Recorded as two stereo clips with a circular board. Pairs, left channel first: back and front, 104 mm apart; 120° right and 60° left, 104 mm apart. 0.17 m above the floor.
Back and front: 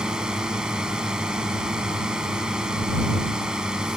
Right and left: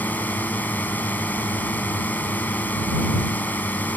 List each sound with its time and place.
0.0 s a drone: 75° right